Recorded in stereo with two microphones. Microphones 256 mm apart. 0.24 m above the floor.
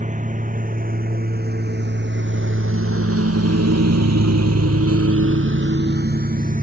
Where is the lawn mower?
30° right (ahead or behind).